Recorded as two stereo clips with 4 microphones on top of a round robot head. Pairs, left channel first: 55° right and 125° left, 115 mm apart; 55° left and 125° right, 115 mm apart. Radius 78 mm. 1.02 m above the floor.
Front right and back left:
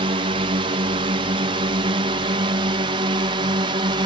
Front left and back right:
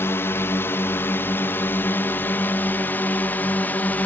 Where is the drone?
120° left; by 4.1 s 125° left.